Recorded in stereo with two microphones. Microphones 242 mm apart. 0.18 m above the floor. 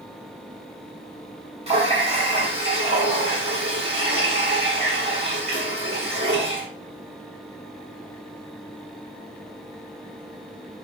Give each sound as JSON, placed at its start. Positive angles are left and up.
{"t": 1.7, "sound": "a running tap", "side_deg": -25, "distance_m": 1.0}